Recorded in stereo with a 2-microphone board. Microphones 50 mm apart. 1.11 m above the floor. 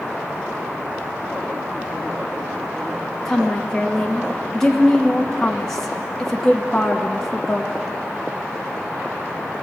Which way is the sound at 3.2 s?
10° left (ahead or behind).